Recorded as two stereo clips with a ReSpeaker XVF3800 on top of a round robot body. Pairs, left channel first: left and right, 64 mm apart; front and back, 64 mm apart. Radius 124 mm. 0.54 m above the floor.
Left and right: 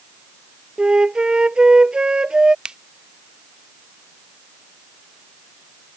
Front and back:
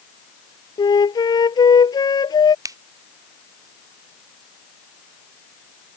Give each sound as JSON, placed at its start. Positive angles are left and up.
{"t": 0.8, "sound": "a flute", "azimuth_deg": -10}
{"t": 2.6, "sound": "a finger snap", "azimuth_deg": -165}